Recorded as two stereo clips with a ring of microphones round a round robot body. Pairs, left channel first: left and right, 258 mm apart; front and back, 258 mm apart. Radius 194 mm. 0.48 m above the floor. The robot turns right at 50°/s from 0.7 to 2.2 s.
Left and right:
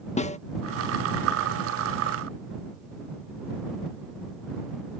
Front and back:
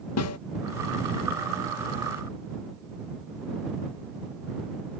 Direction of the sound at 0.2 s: 25° left.